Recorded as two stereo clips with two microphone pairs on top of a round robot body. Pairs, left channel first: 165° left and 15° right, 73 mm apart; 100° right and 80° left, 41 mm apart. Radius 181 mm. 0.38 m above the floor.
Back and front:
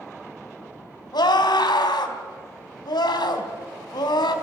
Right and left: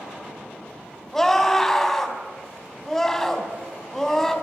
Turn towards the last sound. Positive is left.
turn(degrees=180)